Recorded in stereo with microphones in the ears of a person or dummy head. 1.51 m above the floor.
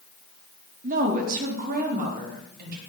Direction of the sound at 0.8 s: 40° right (ahead or behind).